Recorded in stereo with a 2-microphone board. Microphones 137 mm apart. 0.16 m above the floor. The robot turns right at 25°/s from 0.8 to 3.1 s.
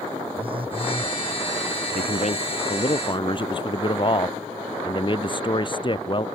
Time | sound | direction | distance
0.4 | a phone buzzing | 40° right (ahead or behind) | ?
1.9 | a man speaking | 65° left (ahead or behind) | ?